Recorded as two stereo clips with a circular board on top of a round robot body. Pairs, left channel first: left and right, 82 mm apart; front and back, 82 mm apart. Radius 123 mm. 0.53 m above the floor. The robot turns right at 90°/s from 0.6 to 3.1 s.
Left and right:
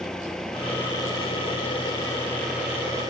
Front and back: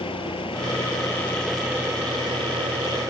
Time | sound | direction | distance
0.0 | an engine running | 5° left | ?